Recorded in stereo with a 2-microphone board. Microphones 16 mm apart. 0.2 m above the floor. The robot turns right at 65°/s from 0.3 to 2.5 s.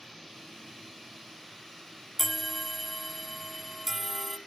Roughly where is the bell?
Centre.